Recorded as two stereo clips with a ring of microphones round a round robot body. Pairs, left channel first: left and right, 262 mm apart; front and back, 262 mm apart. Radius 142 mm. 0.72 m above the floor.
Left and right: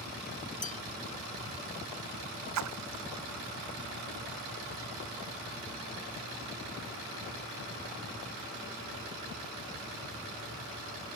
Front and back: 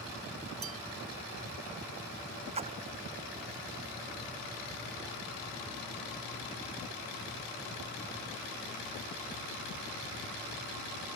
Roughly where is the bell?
Behind left.